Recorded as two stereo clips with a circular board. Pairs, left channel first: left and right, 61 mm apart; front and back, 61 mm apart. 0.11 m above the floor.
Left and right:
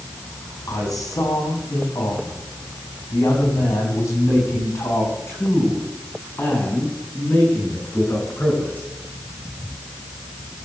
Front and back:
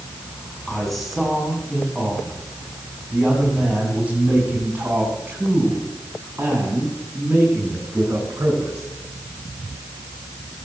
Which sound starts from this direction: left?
A man speaking, at 0.7 s.